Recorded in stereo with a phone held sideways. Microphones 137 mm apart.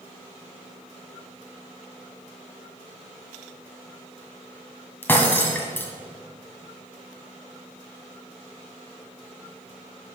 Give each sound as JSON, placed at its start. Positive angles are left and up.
{"t": 5.0, "sound": "breaking glass", "side_deg": 15, "distance_m": 1.9}